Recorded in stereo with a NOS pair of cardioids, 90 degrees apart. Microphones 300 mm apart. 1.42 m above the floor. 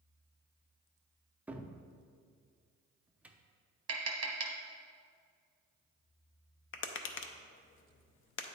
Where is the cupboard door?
5° right, 0.5 m.